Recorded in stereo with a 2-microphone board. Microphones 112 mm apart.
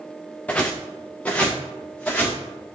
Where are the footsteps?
10° left (ahead or behind), 1.2 m.